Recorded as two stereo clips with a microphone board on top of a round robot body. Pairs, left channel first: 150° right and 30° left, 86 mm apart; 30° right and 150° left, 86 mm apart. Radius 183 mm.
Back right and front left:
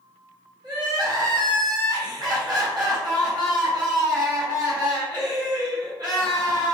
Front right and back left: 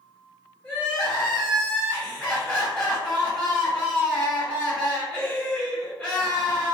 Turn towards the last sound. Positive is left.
turn(degrees=50)